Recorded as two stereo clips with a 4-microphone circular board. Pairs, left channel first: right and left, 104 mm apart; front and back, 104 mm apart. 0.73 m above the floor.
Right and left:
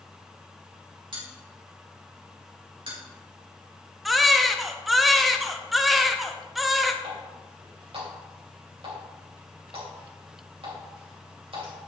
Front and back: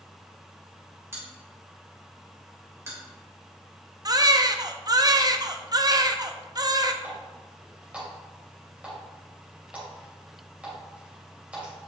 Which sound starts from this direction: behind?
A baby crying, at 4.0 s.